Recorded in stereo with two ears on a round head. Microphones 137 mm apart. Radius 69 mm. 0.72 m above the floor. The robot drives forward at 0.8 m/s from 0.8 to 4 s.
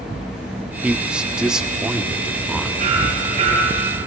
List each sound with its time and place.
0.8 s a man speaking: 10° right (ahead or behind), 0.6 m; by 2.7 s centre (ahead or behind), 2.0 m
2.8 s hammering: 40° right (ahead or behind), 6 m; by 4.0 s 35° right (ahead or behind), 6.5 m